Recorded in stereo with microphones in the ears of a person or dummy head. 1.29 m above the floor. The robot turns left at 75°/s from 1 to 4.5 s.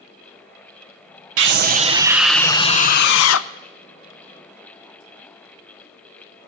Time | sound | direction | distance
1.4 | a scream | 115° right | 0.6 m